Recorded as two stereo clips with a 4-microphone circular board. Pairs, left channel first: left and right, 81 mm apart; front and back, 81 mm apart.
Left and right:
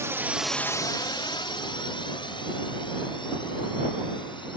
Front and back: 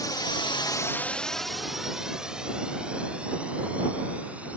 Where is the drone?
35° right; by 4.6 s 105° left.